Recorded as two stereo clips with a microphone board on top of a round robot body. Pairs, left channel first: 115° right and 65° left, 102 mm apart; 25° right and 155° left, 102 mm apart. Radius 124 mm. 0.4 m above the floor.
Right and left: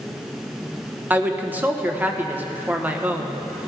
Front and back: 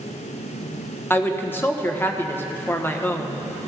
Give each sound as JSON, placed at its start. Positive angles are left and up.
{"t": 1.1, "sound": "a woman speaking", "azimuth_deg": 15, "distance_m": 1.2}